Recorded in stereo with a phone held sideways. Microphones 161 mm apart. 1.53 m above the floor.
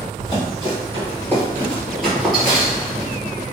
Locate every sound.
0.2 s running footsteps: 25° left (ahead or behind), 1.7 m; by 3.1 s 10° right (ahead or behind), 1.6 m